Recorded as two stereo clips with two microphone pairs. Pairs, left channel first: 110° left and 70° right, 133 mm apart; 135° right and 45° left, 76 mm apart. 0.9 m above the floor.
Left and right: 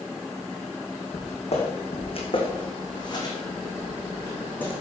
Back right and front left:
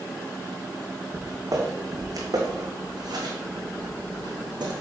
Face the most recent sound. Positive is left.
turn(degrees=35)